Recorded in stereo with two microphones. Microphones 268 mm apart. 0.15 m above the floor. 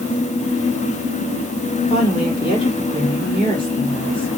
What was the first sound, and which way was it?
A woman speaking, 20° left (ahead or behind).